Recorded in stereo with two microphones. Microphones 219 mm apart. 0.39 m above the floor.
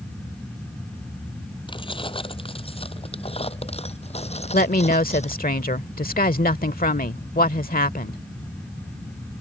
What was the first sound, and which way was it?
Keys jangling, 25° left (ahead or behind).